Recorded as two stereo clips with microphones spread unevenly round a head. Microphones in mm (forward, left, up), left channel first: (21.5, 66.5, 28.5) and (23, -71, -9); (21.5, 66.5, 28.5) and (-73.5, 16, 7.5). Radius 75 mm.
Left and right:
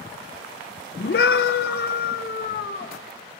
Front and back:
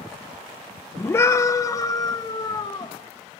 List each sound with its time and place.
1.0 s a scream: 95° left, 1.4 m; by 2.9 s 75° left, 2.5 m